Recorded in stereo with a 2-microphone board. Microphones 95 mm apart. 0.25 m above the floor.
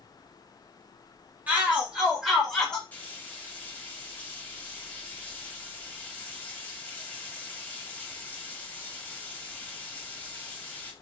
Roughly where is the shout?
Centre.